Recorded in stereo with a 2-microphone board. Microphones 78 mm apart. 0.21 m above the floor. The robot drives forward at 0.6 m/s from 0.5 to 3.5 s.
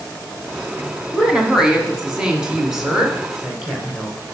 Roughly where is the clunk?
I don't hear a clunk.